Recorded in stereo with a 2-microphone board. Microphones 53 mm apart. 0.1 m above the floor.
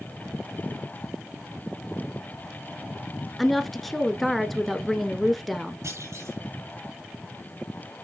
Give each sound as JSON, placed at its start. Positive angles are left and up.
{"t": 3.4, "sound": "a woman speaking", "side_deg": 0, "distance_m": 1.1}
{"t": 5.8, "sound": "a clunk", "side_deg": -65, "distance_m": 5.5}